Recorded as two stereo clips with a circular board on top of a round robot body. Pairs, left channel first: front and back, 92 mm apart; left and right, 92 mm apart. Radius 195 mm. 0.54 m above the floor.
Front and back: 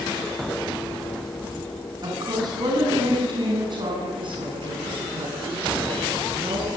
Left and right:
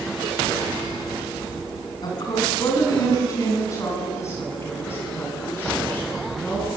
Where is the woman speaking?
135° left, 8.5 m; by 6.7 s 165° left, 10 m.